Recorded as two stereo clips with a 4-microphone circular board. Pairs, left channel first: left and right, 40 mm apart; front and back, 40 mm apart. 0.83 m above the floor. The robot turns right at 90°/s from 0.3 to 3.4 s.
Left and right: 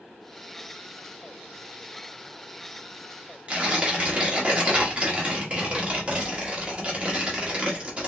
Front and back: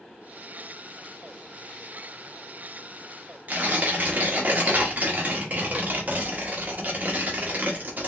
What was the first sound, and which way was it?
Tearing paper, 145° right.